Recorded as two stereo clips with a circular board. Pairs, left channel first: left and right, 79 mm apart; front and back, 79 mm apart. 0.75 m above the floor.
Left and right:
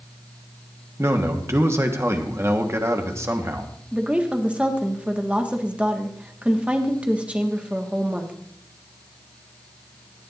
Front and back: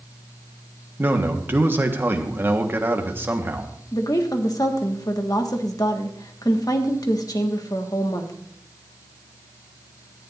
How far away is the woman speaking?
About 1.5 m.